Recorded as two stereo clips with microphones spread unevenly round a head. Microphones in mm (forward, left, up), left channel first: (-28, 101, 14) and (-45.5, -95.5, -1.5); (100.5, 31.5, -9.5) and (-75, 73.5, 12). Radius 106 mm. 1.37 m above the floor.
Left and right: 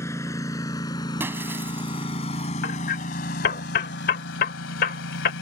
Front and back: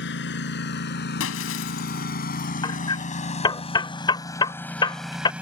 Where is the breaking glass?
15° right.